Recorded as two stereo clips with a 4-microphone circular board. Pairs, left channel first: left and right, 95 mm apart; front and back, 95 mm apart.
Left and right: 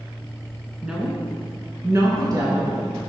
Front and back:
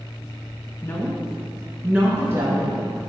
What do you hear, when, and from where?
0.8 s a woman speaking: 10° right, 1.2 m; by 3.0 s 130° right, 2.0 m